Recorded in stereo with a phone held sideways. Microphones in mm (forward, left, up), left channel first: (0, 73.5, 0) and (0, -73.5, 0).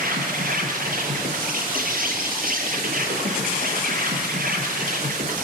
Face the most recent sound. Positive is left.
turn(degrees=-75)  # may be behind; listen again after turning